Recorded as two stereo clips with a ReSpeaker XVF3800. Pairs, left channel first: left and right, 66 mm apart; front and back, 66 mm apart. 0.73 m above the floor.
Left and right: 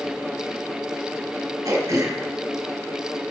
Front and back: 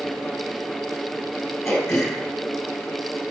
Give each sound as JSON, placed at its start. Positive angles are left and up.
{"t": 1.6, "sound": "throat clearing", "azimuth_deg": -55, "distance_m": 2.0}